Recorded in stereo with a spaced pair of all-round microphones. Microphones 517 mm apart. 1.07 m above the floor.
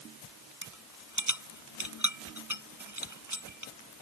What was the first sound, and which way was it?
A rattle, 35° right (ahead or behind).